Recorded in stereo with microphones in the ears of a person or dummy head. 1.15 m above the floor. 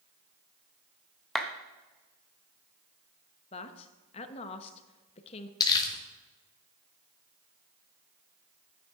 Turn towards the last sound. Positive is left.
turn(degrees=20)  # may be behind; listen again after turning